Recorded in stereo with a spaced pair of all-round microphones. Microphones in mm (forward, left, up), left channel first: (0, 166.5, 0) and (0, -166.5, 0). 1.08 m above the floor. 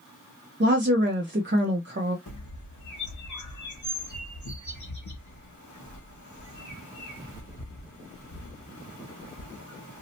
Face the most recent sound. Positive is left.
turn(degrees=60)  # may be behind; listen again after turning